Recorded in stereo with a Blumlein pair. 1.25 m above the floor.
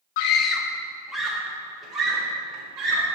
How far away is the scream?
About 0.6 m.